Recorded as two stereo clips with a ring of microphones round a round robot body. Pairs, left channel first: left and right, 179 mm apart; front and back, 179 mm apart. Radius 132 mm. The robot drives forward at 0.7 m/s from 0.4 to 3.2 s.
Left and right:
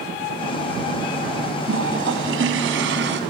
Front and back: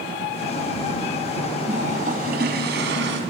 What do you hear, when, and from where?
1.7 s a toilet flushing: 115° right, 2 m; by 3.2 s 135° right, 2.5 m